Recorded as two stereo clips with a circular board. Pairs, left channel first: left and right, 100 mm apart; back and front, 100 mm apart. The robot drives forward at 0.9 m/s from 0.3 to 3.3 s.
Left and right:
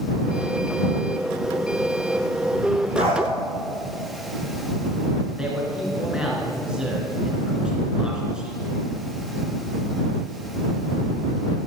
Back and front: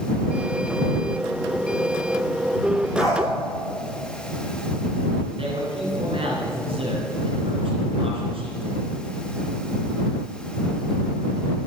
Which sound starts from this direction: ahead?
A man speaking, at 5.4 s.